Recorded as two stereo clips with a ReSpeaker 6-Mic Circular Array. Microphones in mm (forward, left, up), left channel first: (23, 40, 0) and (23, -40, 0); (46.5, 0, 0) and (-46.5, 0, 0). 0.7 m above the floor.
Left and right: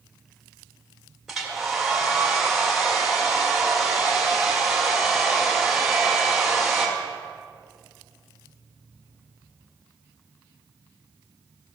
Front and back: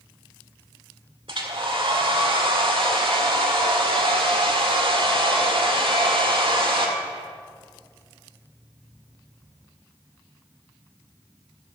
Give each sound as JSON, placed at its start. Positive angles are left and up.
{"t": 1.3, "sound": "a hair dryer", "azimuth_deg": -175, "distance_m": 1.8}